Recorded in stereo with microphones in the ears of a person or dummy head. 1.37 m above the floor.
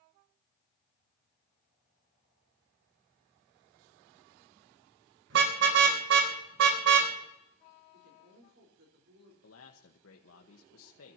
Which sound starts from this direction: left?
A man speaking, at 9.4 s.